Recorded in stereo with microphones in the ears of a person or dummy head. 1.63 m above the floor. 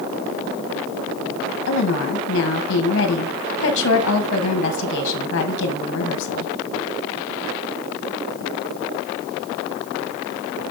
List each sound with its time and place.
1.7 s a woman speaking: 75° left (ahead or behind), 1.9 m